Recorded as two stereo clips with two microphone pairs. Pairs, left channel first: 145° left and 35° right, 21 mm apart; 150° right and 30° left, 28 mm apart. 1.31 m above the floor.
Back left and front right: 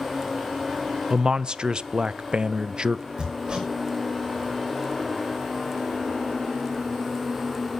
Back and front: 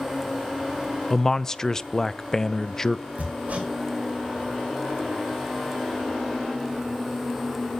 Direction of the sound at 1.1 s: 85° right.